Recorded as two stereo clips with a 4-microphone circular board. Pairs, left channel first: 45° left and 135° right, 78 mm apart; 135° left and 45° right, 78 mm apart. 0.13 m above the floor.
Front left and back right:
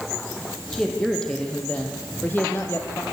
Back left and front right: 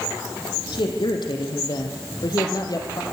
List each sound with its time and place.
0.7 s a man speaking: 130° left, 4 m; by 3.0 s 95° left, 3 m